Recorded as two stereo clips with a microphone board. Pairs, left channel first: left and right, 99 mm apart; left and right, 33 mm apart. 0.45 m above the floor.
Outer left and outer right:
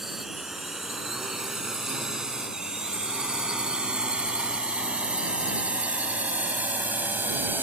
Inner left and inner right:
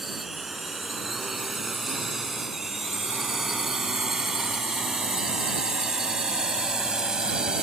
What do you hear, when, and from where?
0.0 s a drone: centre (ahead or behind); by 7.6 s 20° right (ahead or behind)